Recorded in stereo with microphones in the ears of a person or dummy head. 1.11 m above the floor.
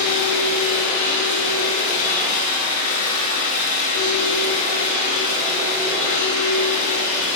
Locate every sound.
0.0 s a machine running: 40° left (ahead or behind), 2.5 m